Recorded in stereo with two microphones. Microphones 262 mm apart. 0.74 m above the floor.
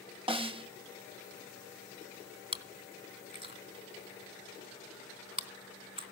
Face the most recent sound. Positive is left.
turn(degrees=-20)  # may be behind; listen again after turning